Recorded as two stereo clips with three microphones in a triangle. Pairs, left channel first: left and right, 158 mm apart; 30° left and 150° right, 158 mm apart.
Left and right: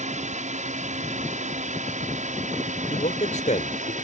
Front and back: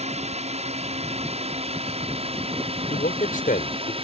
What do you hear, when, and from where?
0.0 s a drone: 115° right; by 4.0 s 105° right
2.9 s a man speaking: 55° left